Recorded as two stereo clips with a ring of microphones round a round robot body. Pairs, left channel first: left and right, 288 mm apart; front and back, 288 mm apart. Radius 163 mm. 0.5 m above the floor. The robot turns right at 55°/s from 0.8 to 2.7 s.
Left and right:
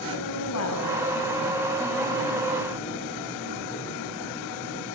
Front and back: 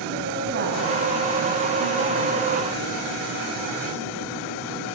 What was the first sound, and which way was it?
A woman speaking, 120° left.